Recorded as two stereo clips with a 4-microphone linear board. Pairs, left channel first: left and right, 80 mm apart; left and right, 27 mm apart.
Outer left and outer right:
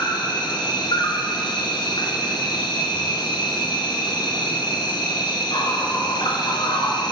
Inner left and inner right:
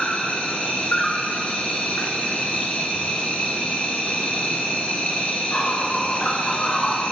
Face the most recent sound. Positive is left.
turn(degrees=75)  # may be behind; listen again after turning